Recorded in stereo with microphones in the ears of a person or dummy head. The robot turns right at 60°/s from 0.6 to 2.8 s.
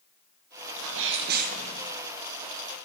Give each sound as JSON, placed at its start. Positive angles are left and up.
{"t": 0.8, "sound": "a sneeze", "azimuth_deg": -85, "distance_m": 0.9}